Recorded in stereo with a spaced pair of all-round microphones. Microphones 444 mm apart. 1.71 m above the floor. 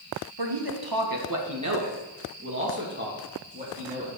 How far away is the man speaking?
About 1.7 m.